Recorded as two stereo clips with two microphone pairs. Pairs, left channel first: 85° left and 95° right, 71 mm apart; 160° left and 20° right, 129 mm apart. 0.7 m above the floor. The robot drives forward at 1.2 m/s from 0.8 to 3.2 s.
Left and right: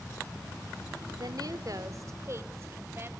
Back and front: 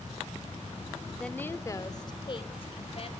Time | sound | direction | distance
1.1 | a woman speaking | 110° right | 1.5 m